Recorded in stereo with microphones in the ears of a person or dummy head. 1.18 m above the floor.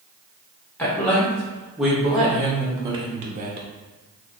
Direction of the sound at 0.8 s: 10° left (ahead or behind).